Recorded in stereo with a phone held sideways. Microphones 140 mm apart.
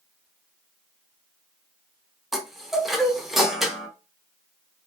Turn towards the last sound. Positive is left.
turn(degrees=0)  # may be behind; listen again after turning